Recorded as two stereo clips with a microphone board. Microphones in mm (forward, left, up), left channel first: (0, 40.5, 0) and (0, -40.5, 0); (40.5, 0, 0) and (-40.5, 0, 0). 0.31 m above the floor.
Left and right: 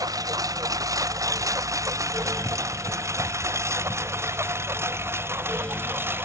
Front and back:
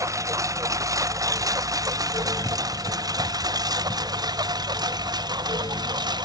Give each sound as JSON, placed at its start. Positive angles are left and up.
{"t": 0.0, "sound": "a lawn mower", "azimuth_deg": -130}